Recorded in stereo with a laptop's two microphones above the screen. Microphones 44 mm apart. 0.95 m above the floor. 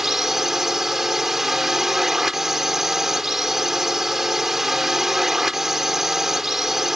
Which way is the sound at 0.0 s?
10° right (ahead or behind).